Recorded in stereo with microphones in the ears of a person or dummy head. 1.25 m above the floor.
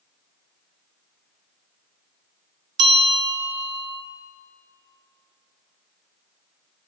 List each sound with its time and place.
2.8 s a bell: 25° right (ahead or behind), 2.5 m